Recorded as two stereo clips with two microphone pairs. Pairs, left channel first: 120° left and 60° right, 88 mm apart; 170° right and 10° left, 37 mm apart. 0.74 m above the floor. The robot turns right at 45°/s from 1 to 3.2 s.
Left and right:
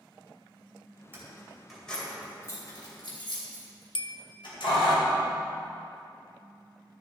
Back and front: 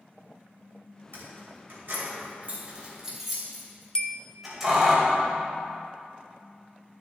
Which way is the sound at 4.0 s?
130° left.